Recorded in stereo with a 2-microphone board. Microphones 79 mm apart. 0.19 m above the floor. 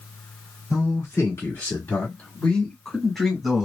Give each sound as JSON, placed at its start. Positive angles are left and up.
{"t": 0.7, "sound": "a man speaking", "side_deg": 45, "distance_m": 1.9}